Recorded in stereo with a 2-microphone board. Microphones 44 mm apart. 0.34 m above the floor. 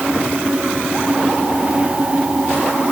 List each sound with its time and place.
Only background noise.